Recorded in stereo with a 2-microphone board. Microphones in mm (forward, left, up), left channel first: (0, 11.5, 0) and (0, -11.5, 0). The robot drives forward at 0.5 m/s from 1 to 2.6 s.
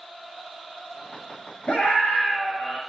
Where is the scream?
70° left (ahead or behind), 8.5 m.